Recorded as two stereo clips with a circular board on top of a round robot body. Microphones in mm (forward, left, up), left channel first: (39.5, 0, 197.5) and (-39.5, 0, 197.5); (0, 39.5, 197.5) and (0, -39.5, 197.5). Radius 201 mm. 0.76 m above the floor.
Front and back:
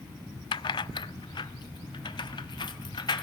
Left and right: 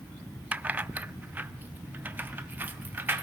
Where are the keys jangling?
20° right, 0.5 m; by 3.2 s 25° right, 1.9 m.